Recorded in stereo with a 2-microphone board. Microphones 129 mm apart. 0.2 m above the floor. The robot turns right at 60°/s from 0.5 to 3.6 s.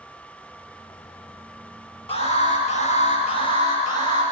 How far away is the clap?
I don't hear a clap.